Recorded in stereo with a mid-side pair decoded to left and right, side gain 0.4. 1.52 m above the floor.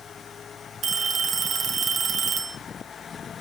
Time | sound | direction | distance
0.8 | a phone ringing | 55° right | 1.6 m